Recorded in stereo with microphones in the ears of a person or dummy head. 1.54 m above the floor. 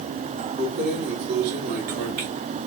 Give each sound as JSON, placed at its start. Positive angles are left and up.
{"t": 0.6, "sound": "keys jangling", "side_deg": -70, "distance_m": 2.0}